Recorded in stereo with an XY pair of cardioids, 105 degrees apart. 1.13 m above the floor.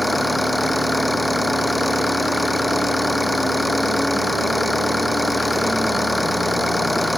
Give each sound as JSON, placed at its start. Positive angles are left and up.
{"t": 0.0, "sound": "an engine running", "azimuth_deg": 0}